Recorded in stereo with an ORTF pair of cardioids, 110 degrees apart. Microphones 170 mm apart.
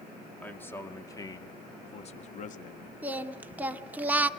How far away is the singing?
About 1.3 m.